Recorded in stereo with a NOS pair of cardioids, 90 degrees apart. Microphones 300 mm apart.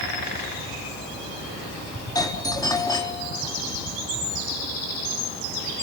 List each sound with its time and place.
2.1 s a doorbell: 10° left, 4 m